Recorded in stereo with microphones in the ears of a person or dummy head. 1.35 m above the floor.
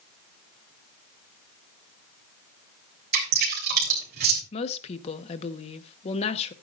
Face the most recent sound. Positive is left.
turn(degrees=30)  # may be behind; listen again after turning